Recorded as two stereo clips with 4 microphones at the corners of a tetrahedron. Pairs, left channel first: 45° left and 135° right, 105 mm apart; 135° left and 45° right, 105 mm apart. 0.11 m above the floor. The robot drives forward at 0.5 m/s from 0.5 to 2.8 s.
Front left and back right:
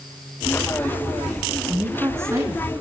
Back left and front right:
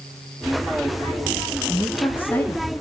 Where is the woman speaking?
165° right, 1.1 m; by 2.8 s 175° right, 1.4 m.